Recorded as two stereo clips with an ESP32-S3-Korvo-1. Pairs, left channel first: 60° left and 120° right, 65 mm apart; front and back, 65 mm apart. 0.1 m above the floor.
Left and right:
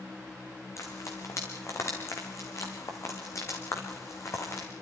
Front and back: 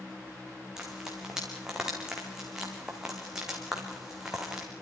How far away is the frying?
About 4 m.